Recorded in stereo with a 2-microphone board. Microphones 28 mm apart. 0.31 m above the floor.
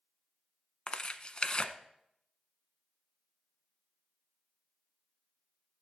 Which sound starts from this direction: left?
Tearing paper, at 0.9 s.